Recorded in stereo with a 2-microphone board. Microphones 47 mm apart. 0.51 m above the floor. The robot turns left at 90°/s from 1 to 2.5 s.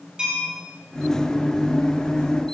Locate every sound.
0.2 s a bell: 20° right (ahead or behind), 6 m